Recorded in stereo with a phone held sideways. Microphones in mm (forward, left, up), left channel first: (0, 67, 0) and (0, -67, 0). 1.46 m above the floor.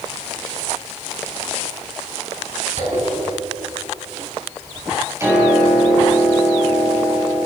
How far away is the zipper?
About 6.5 m.